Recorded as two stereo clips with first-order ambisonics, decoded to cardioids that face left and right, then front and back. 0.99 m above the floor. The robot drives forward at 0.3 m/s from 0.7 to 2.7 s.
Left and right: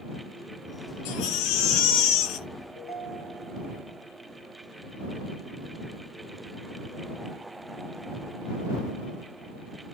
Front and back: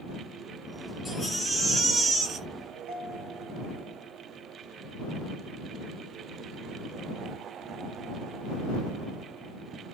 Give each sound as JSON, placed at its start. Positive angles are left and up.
{"t": 1.1, "sound": "a baby crying", "azimuth_deg": 90, "distance_m": 0.8}
{"t": 2.8, "sound": "a ringtone", "azimuth_deg": 165, "distance_m": 1.4}